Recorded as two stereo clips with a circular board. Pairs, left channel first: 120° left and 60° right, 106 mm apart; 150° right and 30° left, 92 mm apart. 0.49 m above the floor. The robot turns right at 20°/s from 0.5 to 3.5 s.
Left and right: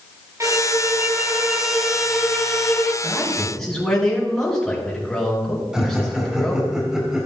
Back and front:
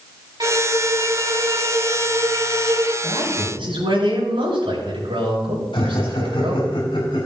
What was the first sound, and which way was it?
A violin, 5° right.